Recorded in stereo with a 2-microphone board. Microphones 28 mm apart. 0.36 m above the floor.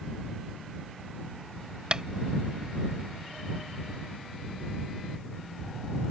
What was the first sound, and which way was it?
Tapping, 35° right (ahead or behind).